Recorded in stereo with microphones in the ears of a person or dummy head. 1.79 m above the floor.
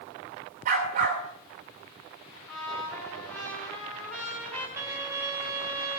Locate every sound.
0.7 s a dog barking: 40° right (ahead or behind), 3 m
2.5 s a trumpet: 15° left (ahead or behind), 6 m
4.8 s a violin: 5° right (ahead or behind), 1.4 m